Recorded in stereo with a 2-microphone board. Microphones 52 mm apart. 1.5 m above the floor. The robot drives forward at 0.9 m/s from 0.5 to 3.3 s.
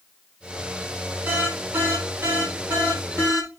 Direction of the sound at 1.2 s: 50° right (ahead or behind).